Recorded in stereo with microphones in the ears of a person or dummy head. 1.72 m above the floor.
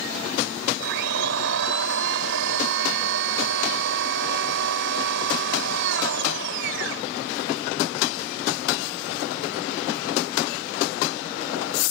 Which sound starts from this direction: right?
A blender, at 0.8 s.